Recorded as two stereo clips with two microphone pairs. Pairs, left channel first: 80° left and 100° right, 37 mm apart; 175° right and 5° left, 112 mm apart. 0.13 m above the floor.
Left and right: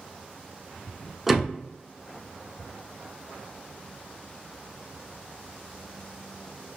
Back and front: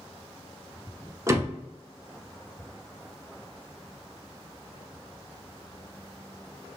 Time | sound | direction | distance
1.3 | a door slam | 25° right | 0.8 m